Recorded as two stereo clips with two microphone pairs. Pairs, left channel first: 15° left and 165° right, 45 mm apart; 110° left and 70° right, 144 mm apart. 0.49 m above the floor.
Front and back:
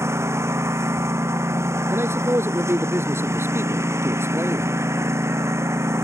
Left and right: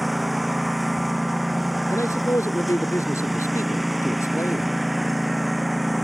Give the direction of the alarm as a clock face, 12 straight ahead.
No alarm in this recording.